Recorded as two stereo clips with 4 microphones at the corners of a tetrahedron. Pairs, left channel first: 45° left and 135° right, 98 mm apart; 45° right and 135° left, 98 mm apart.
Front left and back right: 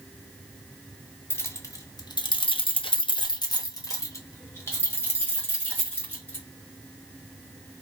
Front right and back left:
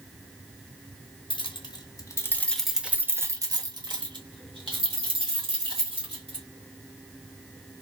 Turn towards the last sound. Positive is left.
turn(degrees=115)